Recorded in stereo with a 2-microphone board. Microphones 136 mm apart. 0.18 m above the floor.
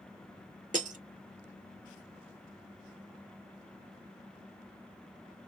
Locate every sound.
0.7 s breaking glass: 65° right (ahead or behind), 0.5 m